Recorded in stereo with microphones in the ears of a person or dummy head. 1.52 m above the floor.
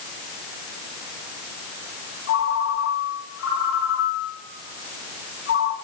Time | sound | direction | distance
2.3 | a ringtone | 75° left (ahead or behind) | 7 m